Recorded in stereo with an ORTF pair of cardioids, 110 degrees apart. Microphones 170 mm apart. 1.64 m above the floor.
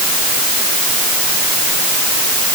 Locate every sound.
Only background noise.